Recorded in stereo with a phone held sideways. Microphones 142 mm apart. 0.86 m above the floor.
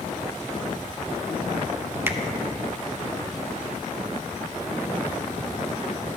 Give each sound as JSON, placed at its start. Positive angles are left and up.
{"t": 2.1, "sound": "a finger snap", "side_deg": -15, "distance_m": 0.7}